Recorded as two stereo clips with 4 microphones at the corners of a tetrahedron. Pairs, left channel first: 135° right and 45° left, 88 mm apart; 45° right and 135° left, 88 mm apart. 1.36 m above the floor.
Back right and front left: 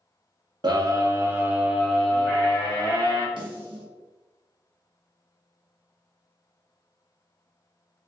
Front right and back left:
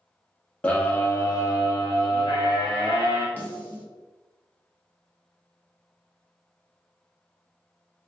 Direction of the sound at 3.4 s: 25° left.